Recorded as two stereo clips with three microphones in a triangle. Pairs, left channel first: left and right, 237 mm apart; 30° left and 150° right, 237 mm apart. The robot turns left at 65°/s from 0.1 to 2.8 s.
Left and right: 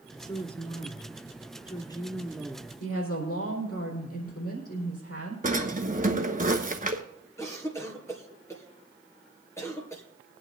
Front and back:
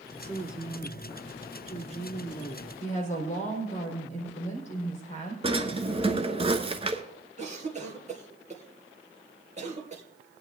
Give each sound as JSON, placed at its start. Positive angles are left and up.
{"t": 0.2, "sound": "a woman speaking", "azimuth_deg": 150, "distance_m": 1.2}
{"t": 2.8, "sound": "a woman speaking", "azimuth_deg": 85, "distance_m": 4.0}
{"t": 5.4, "sound": "a drawer", "azimuth_deg": -100, "distance_m": 1.0}
{"t": 7.4, "sound": "a cough", "azimuth_deg": 165, "distance_m": 2.5}